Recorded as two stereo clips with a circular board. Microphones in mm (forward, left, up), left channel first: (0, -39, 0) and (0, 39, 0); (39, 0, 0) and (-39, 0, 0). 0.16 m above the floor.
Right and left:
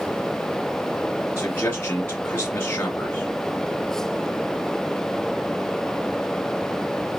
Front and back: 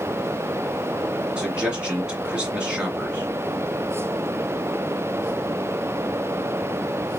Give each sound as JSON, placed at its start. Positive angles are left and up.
{"t": 1.4, "sound": "a man speaking", "azimuth_deg": -115, "distance_m": 1.9}